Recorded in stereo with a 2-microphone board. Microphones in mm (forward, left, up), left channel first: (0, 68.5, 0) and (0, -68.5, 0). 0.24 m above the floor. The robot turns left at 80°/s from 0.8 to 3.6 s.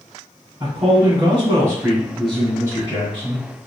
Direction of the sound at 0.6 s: 25° right (ahead or behind).